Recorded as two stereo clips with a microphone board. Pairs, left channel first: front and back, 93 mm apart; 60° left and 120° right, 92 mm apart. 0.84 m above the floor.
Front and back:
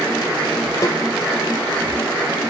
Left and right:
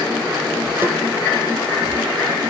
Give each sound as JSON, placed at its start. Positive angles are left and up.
{"t": 0.8, "sound": "a snare drum", "azimuth_deg": -55, "distance_m": 4.0}